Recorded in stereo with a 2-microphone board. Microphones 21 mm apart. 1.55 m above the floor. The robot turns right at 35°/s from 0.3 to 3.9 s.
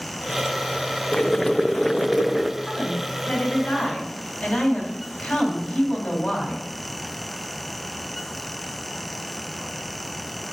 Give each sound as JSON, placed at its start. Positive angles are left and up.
{"t": 1.1, "sound": "boiling", "azimuth_deg": 145, "distance_m": 0.5}
{"t": 2.6, "sound": "a woman speaking", "azimuth_deg": 50, "distance_m": 3.5}